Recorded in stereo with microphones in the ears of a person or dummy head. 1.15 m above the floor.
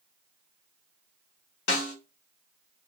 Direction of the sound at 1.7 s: 70° left (ahead or behind).